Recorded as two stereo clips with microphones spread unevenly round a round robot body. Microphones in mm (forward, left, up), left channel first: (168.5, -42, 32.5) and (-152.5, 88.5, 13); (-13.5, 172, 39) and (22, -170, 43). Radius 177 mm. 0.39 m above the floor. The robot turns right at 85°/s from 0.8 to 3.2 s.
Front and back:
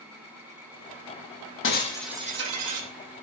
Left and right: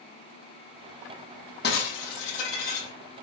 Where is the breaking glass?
35° left, 7.5 m; by 2.9 s 140° left, 7.5 m.